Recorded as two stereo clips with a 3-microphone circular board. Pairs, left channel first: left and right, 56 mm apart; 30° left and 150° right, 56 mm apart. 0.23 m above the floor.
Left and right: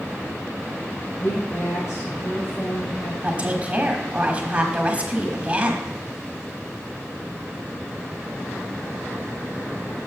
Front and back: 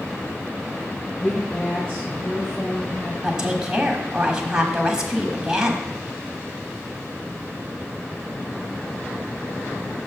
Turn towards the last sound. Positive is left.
turn(degrees=-90)